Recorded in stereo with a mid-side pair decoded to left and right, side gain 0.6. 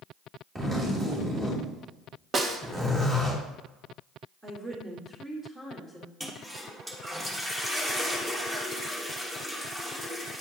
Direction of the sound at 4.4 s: 15° right.